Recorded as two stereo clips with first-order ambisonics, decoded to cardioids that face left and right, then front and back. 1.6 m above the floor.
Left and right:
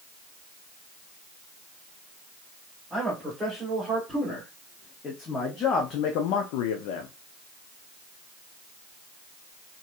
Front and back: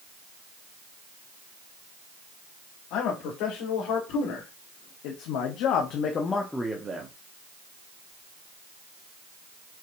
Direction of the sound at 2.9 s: Straight ahead.